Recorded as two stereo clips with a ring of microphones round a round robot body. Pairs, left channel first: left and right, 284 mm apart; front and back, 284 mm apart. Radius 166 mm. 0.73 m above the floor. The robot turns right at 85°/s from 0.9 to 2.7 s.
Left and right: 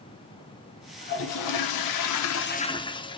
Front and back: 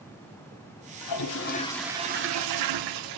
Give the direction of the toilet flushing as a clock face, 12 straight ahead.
11 o'clock.